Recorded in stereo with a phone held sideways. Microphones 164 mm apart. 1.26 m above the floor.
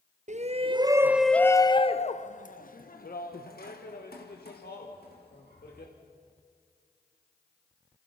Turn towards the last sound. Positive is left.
turn(degrees=80)